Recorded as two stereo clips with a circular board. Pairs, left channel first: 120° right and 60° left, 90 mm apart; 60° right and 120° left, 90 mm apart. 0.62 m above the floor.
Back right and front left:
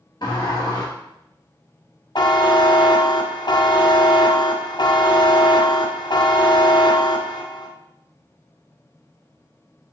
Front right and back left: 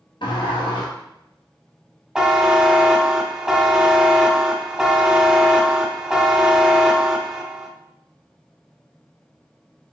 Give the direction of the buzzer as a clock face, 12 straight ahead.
5 o'clock.